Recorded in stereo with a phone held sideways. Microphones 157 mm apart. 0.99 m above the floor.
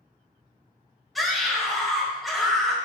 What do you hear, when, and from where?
1.1 s a scream: centre (ahead or behind), 5 m